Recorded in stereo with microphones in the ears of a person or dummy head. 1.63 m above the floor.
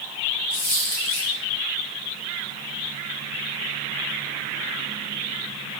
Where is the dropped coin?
25° left (ahead or behind), 1.6 m.